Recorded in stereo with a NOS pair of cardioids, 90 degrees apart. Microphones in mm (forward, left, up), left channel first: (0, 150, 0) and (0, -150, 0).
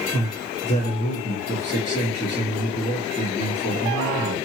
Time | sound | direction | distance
0.1 | a man speaking | 25° left | 1.9 m